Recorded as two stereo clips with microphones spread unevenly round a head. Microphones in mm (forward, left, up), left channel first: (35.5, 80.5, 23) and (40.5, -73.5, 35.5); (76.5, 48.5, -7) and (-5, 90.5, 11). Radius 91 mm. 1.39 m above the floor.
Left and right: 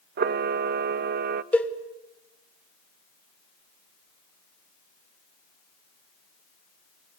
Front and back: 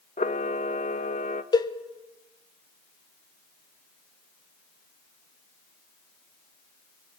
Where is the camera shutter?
65° right, 0.6 m.